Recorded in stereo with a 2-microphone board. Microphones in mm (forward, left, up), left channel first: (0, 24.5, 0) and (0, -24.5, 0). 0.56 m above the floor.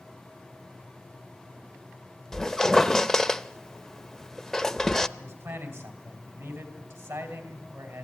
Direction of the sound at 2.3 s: 10° left (ahead or behind).